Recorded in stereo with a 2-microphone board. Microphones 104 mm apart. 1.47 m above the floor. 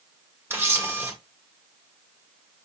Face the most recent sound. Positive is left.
turn(degrees=-20)  # may be behind; listen again after turning